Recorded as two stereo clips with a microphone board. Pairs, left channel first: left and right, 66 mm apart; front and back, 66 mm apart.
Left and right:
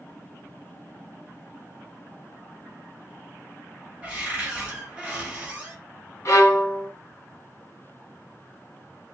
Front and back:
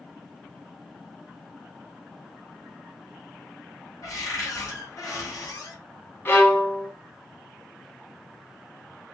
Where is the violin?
50° left, 1.3 m.